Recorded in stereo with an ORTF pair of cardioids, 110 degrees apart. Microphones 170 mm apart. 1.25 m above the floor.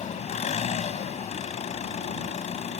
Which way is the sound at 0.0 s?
45° left.